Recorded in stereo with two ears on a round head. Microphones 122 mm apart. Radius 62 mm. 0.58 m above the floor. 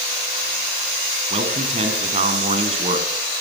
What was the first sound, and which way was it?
A man speaking, 45° right (ahead or behind).